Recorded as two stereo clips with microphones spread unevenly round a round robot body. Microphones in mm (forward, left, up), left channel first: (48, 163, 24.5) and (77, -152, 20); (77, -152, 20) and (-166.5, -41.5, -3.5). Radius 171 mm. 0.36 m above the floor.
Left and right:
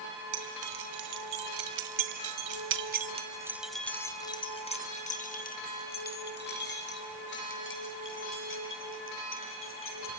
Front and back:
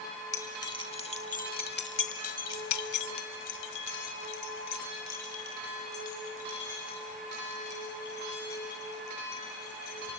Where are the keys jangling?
105° right, 3 m; by 10.1 s 45° left, 8.5 m.